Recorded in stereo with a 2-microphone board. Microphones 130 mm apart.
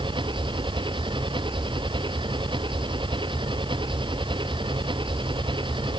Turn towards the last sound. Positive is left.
turn(degrees=-40)  # may be behind; listen again after turning